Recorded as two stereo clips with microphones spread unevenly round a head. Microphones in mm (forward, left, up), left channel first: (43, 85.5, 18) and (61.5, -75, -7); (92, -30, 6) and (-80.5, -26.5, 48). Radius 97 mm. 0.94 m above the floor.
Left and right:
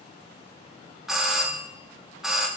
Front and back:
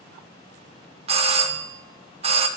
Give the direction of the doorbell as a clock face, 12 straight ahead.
5 o'clock.